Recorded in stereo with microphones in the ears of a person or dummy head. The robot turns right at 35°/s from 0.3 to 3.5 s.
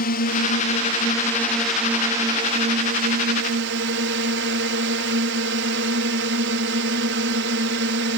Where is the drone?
135° left; by 8.2 s 115° right.